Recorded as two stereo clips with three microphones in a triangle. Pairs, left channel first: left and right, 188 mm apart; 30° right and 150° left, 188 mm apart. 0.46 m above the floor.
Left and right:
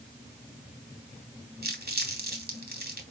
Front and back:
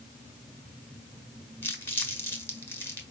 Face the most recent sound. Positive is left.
turn(degrees=-105)